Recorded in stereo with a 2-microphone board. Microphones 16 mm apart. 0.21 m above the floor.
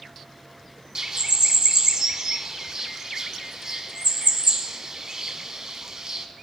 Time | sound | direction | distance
0.9 | a bird | 45° right (ahead or behind) | 0.5 m